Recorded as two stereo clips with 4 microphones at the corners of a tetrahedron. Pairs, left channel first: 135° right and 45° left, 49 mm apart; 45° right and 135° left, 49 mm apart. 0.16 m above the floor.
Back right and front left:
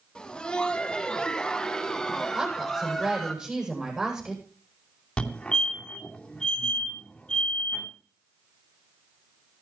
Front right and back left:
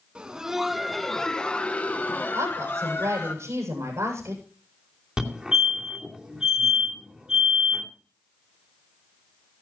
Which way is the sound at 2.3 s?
115° left.